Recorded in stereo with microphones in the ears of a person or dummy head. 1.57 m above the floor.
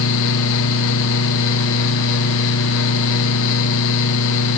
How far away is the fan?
About 1.1 m.